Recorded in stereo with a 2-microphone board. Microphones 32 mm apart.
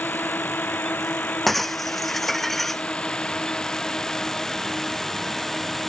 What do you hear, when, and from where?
0.0 s a drone: 70° left (ahead or behind); by 5.9 s 10° left (ahead or behind)
1.5 s breaking glass: 10° left (ahead or behind)